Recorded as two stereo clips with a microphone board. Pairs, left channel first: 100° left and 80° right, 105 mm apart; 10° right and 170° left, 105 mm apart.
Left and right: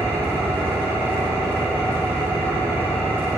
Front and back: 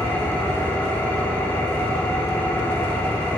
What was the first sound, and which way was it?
An engine running, 50° right.